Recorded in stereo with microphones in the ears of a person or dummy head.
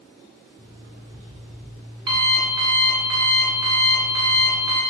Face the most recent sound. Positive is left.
turn(degrees=-25)  # may be behind; listen again after turning